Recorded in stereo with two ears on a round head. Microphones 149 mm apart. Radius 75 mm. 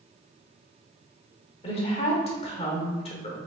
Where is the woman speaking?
35° left (ahead or behind), 1.1 m.